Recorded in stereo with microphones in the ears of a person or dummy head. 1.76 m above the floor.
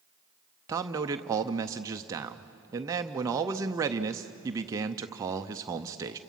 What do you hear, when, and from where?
0.7 s a man speaking: 15° right (ahead or behind), 0.6 m